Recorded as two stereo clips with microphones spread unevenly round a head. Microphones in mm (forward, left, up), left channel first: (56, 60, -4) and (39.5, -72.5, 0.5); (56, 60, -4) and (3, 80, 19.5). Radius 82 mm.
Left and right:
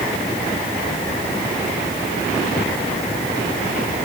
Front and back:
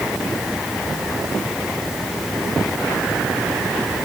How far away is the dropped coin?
No dropped coin in this recording.